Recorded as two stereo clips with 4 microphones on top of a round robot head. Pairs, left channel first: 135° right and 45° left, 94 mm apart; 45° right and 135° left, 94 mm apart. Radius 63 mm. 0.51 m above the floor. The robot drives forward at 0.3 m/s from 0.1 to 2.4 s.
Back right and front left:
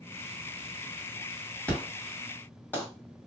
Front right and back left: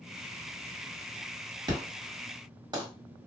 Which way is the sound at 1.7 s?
155° left.